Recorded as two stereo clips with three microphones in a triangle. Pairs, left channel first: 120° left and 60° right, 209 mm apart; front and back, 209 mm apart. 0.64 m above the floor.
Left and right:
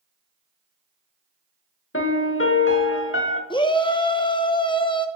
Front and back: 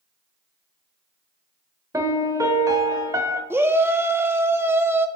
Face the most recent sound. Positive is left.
turn(degrees=120)